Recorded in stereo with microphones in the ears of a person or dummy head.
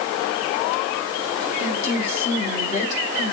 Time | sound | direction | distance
1.6 | a woman speaking | 35° left (ahead or behind) | 3.5 m